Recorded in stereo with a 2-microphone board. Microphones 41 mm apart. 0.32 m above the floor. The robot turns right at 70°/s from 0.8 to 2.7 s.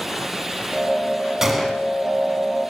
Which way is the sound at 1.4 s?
15° right (ahead or behind).